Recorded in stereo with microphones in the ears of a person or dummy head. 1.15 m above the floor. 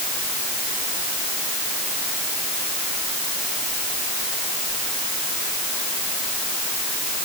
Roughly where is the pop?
I don't hear a pop.